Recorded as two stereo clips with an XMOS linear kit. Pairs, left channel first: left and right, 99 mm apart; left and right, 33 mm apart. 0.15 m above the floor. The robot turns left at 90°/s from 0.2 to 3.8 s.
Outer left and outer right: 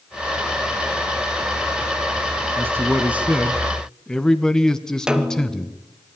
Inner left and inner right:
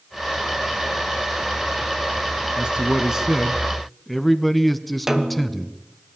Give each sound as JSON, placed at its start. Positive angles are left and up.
{"t": 2.6, "sound": "a man speaking", "side_deg": -20, "distance_m": 1.1}
{"t": 5.1, "sound": "a snare drum", "side_deg": -10, "distance_m": 1.5}